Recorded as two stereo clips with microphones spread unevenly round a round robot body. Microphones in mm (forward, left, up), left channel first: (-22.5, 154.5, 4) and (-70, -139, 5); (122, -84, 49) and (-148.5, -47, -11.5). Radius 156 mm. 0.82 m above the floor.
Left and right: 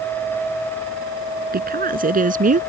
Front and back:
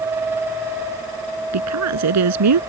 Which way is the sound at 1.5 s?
160° right.